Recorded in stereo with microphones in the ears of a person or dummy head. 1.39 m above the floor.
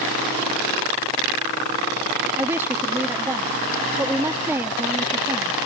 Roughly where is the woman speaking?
Centre.